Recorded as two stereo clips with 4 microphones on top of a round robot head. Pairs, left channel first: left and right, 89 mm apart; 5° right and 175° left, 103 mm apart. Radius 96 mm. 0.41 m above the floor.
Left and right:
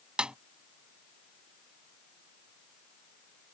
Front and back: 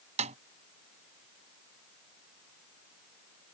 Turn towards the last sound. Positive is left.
turn(degrees=-170)